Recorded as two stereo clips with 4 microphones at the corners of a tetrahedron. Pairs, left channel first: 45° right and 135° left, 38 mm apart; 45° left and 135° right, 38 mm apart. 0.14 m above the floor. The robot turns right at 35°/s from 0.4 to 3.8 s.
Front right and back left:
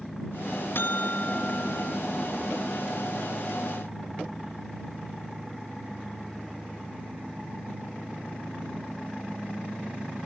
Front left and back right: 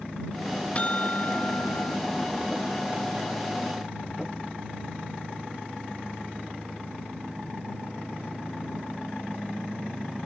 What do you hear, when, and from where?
0.8 s a buzzer: 15° right; by 2.0 s 25° left